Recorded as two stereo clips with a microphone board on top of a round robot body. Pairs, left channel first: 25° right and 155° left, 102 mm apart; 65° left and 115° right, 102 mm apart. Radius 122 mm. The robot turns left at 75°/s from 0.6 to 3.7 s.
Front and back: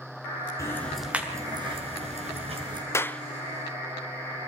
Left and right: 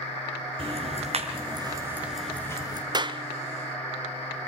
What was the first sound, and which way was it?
Ticking, 85° right.